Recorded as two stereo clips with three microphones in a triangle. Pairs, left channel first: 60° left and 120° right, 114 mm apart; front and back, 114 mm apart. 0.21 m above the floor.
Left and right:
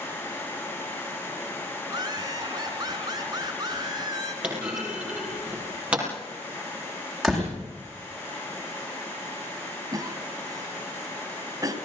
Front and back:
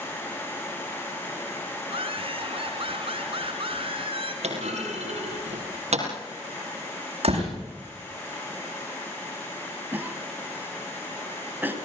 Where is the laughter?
165° right, 2.5 m.